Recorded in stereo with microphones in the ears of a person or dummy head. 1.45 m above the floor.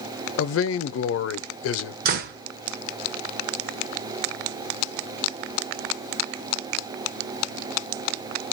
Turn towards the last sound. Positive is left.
turn(degrees=-50)  # may be behind; listen again after turning